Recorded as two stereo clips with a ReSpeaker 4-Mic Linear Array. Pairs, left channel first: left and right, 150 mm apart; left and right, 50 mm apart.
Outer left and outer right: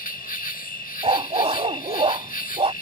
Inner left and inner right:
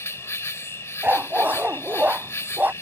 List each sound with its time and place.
0.0 s an insect: 60° left (ahead or behind)
1.0 s a dog barking: 40° right (ahead or behind)